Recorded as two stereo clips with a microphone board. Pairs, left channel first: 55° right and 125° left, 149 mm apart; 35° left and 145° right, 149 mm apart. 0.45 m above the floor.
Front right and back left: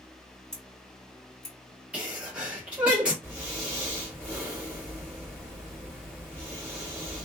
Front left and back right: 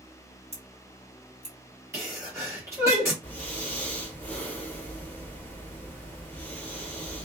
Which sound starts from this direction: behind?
A sneeze, at 1.9 s.